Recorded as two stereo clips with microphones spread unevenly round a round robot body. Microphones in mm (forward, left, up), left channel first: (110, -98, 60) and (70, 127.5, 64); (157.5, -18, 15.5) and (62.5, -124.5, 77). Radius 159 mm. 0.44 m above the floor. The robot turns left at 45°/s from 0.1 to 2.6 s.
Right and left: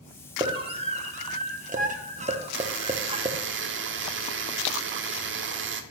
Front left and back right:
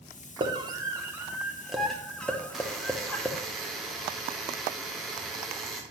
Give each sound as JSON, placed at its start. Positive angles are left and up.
{"t": 0.4, "sound": "a scream", "azimuth_deg": 155, "distance_m": 0.9}
{"t": 2.5, "sound": "a buzzer", "azimuth_deg": 120, "distance_m": 0.6}